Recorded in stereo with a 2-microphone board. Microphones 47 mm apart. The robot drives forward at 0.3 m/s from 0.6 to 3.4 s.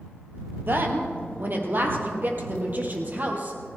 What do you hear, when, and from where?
0.7 s a woman speaking: 50° right (ahead or behind), 2.5 m; by 3.6 s 40° right (ahead or behind), 2.5 m